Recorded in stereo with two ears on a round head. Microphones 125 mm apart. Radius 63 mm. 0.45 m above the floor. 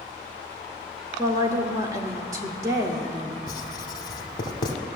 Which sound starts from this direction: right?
A woman speaking, at 1.2 s.